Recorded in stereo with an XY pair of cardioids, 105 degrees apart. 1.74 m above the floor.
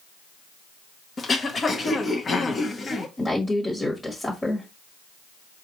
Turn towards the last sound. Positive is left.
turn(degrees=25)